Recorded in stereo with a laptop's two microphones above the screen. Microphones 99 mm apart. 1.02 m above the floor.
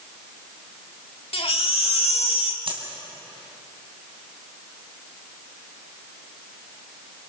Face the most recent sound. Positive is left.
turn(degrees=-65)  # may be behind; listen again after turning